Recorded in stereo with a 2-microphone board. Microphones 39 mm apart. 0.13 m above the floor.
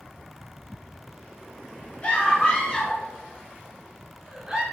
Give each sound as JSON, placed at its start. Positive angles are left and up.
{"t": 2.0, "sound": "a scream", "side_deg": 30, "distance_m": 1.8}